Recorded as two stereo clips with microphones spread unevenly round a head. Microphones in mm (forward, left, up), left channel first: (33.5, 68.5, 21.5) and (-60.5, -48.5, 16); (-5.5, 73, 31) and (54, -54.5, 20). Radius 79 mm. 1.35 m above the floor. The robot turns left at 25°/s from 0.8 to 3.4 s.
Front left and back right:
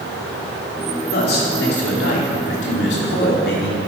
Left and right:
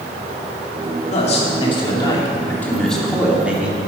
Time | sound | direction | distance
1.1 | a man speaking | 75° left | 3 m